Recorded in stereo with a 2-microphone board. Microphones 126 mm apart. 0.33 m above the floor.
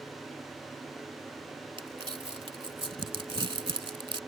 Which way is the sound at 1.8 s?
40° right (ahead or behind).